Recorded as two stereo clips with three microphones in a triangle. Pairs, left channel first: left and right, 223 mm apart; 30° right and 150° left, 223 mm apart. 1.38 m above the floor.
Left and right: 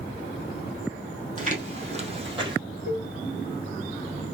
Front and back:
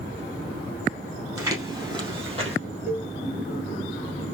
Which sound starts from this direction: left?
A cowbell, at 2.9 s.